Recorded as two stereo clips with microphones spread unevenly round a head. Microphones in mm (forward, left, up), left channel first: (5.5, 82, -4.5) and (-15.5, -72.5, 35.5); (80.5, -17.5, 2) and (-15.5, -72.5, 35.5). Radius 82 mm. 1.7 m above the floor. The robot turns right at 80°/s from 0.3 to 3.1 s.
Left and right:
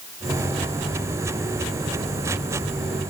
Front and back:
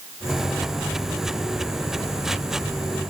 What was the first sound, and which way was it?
Only background noise.